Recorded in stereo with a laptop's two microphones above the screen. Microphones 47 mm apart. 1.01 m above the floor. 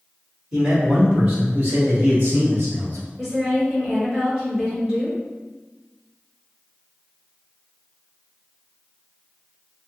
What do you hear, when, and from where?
0.5 s a man speaking: 15° right (ahead or behind), 1.7 m; by 3.1 s 55° right (ahead or behind), 3 m
3.2 s a woman speaking: 10° right (ahead or behind), 1.6 m